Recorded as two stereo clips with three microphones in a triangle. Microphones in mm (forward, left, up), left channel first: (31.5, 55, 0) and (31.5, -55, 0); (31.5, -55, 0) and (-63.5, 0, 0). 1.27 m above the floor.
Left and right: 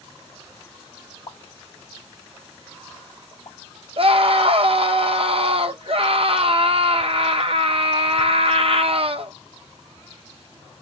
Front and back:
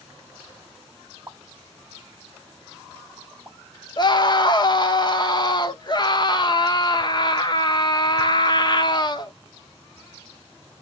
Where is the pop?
90° left, 0.7 m.